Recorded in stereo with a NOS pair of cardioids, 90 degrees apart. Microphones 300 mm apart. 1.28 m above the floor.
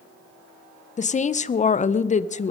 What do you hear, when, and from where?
1.0 s a woman speaking: 25° left, 0.7 m